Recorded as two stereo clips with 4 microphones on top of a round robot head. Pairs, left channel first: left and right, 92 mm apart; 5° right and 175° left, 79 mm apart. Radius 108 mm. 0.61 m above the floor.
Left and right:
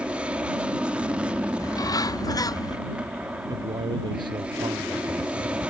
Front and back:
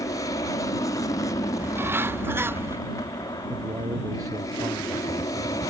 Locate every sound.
0.0 s an aircraft: 15° right
1.6 s a bird: 125° left
3.5 s a man speaking: 130° right